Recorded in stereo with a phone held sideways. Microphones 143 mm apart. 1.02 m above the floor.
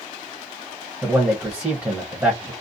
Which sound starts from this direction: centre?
A man speaking, at 1.0 s.